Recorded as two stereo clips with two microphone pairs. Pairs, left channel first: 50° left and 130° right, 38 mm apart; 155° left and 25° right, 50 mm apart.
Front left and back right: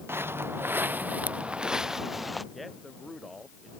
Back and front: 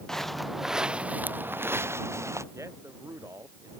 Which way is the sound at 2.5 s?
40° right.